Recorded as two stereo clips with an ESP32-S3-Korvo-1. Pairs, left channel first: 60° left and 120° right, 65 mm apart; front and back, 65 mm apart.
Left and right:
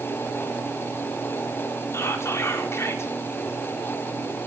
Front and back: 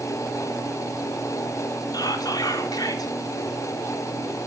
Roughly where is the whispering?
Ahead.